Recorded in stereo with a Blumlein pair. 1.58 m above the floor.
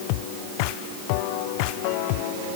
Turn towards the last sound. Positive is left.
No sound to turn to.